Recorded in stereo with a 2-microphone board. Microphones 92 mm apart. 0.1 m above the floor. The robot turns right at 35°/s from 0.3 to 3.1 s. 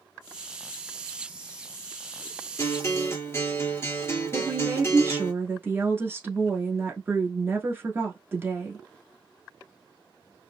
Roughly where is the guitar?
Left.